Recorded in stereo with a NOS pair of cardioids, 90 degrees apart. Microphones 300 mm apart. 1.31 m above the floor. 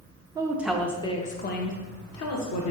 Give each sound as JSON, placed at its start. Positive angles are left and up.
{"t": 0.3, "sound": "a woman speaking", "azimuth_deg": -15, "distance_m": 0.8}